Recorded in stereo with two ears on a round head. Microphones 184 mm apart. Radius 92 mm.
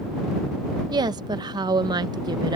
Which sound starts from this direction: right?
A woman speaking, at 0.9 s.